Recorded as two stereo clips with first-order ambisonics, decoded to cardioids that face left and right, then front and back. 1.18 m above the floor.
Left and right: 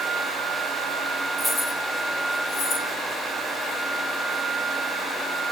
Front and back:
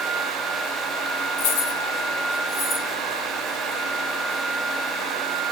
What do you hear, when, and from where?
1.4 s keys jangling: 5° left, 1.1 m; by 2.9 s 45° left, 3 m